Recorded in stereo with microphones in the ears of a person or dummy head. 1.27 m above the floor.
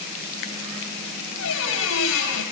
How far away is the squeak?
About 4.5 m.